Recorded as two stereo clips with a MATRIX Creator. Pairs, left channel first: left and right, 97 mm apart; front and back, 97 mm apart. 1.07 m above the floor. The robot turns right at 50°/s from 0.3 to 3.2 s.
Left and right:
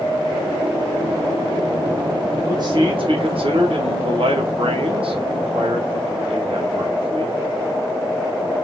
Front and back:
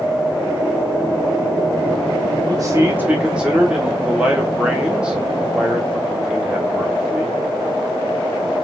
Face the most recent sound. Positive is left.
turn(degrees=-100)